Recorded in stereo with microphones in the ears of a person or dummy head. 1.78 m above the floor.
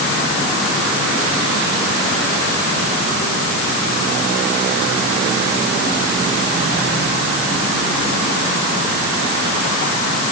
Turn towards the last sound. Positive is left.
No sound to turn to.